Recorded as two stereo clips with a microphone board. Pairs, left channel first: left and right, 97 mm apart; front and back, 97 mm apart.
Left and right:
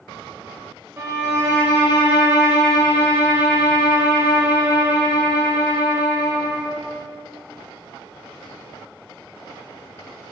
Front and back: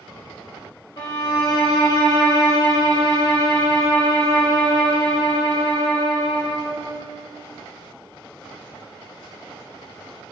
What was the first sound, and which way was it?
A violin, 35° right.